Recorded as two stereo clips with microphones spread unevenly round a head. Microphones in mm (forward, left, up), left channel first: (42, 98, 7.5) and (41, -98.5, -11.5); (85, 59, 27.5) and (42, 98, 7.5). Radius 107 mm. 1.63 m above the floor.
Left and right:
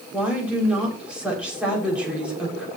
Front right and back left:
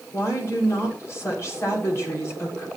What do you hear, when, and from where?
0.1 s a woman speaking: 5° right, 6.5 m